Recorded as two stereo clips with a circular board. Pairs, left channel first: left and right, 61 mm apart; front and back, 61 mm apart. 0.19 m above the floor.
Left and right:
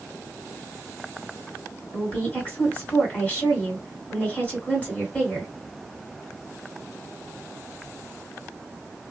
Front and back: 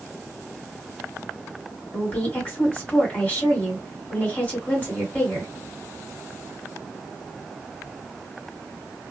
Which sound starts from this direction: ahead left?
A woman speaking, at 1.9 s.